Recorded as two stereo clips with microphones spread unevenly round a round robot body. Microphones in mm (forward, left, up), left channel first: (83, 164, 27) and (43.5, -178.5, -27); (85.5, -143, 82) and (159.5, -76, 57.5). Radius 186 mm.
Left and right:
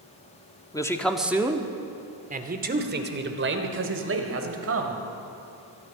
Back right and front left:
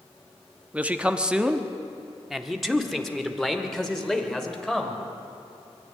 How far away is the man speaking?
About 1.3 m.